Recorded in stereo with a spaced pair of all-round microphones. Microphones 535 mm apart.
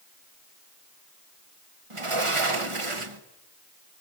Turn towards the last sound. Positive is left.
turn(degrees=-70)  # may be behind; listen again after turning